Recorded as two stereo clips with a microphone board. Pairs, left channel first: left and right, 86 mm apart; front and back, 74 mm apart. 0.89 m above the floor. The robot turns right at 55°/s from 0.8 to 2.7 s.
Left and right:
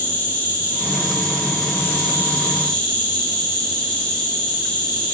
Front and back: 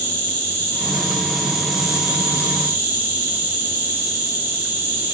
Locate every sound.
0.0 s an insect: 50° left, 0.8 m; by 5.2 s 155° left, 0.8 m